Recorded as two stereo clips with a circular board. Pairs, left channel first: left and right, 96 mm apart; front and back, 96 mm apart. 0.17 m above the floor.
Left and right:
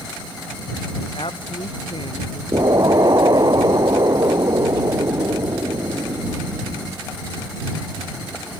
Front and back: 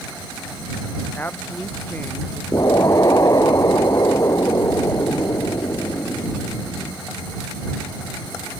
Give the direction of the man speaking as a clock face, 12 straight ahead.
10 o'clock.